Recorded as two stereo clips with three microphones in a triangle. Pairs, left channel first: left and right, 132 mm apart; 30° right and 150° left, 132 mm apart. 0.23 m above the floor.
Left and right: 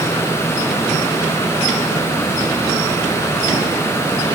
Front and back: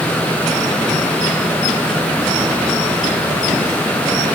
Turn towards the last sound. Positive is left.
No sound to turn to.